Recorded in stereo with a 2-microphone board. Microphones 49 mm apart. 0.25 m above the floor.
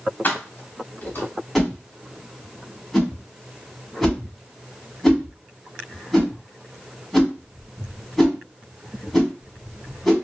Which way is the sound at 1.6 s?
5° left (ahead or behind).